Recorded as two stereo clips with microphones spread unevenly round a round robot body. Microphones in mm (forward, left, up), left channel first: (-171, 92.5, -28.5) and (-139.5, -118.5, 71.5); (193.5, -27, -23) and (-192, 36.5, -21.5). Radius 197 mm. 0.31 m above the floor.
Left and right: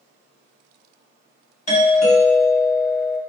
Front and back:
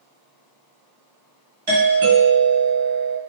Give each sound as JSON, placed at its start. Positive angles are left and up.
{"t": 1.7, "sound": "a doorbell", "azimuth_deg": 105, "distance_m": 2.0}